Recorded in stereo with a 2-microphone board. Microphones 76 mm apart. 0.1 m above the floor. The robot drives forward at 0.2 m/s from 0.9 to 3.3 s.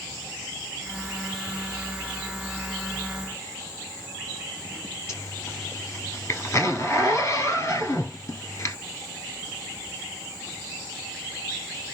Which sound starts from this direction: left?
A zipper, at 5.1 s.